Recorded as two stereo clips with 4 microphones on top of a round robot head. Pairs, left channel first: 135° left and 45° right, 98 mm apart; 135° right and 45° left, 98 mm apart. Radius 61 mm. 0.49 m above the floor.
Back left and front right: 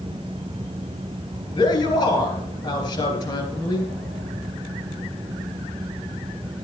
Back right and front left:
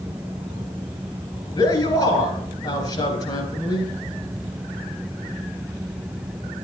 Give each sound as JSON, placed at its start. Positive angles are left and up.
{"t": 1.6, "sound": "a man speaking", "azimuth_deg": -175, "distance_m": 3.5}